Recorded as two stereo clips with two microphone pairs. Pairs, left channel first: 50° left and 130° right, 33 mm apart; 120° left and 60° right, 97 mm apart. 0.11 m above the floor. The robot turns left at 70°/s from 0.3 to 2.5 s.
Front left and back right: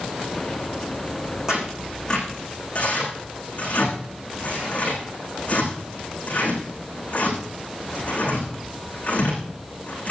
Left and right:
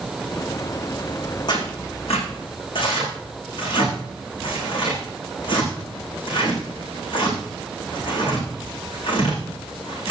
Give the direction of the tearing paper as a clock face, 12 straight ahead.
7 o'clock.